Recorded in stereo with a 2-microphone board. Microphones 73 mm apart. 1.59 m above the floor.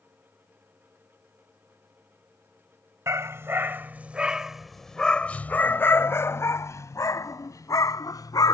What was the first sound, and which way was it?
A dog barking, 45° right (ahead or behind).